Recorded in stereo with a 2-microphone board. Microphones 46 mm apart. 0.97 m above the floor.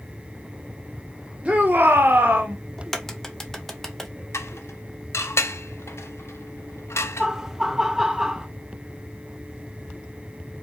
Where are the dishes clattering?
80° left, 0.5 m.